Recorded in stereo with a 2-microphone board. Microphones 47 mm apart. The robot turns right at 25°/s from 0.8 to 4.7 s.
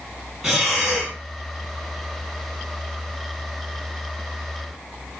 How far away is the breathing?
About 2.5 m.